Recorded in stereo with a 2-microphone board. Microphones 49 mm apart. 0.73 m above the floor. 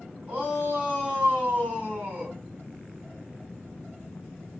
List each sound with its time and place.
0.3 s a shout: 35° right (ahead or behind), 3 m